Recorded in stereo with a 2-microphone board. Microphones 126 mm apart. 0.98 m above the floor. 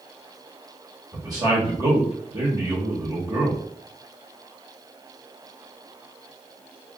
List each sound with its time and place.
1.1 s a man speaking: 30° right (ahead or behind), 1.0 m